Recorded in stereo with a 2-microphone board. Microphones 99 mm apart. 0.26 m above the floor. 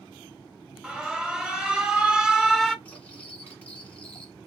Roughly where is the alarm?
Centre.